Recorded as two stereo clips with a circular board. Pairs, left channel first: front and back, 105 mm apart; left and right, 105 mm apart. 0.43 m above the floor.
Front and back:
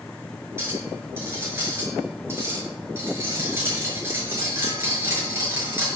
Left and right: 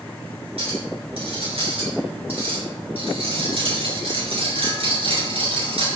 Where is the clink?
110° right, 5 m.